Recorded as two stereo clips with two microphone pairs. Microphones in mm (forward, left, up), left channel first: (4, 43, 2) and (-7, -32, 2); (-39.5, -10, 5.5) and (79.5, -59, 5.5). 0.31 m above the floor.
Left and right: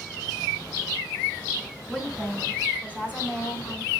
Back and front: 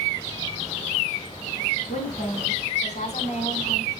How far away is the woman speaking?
About 3 m.